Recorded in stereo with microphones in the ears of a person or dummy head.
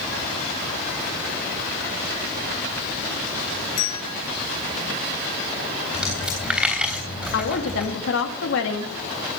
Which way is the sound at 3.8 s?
70° left (ahead or behind).